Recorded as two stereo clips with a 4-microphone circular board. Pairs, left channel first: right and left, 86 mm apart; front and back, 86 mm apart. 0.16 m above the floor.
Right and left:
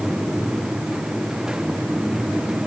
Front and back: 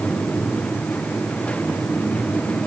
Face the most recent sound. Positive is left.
No sound to turn to.